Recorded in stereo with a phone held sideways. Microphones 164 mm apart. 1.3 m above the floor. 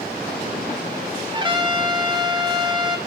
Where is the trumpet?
25° right (ahead or behind), 2 m.